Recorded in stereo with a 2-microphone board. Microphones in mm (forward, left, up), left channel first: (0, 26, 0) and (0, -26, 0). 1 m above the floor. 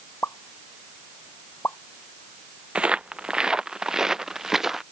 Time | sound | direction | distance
0.2 | a pop | 50° left (ahead or behind) | ?
2.8 | footsteps | 20° right (ahead or behind) | ?